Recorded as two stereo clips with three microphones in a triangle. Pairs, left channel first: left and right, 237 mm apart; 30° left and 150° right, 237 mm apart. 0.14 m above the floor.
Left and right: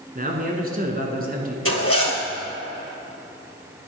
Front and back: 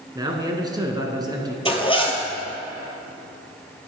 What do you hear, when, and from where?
0.1 s a man speaking: 90° right, 1.4 m
1.6 s a zipper: 95° left, 1.2 m